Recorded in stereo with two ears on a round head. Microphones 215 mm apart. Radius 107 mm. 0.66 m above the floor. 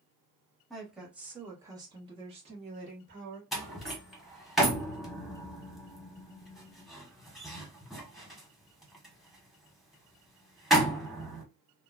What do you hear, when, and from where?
0.7 s a woman speaking: centre (ahead or behind), 1.4 m; by 3.4 s 35° right (ahead or behind), 1.4 m
3.5 s a door slam: centre (ahead or behind), 1.0 m